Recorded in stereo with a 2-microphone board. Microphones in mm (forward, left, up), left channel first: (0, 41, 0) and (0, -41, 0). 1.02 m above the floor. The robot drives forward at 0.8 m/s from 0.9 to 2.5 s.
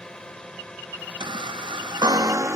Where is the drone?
10° left (ahead or behind).